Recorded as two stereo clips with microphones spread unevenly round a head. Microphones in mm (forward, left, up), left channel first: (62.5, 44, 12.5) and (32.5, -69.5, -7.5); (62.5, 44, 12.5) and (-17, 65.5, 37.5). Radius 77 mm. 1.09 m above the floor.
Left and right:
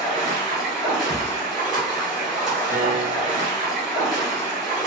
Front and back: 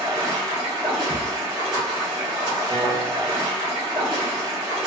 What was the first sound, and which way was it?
Running water, 165° left.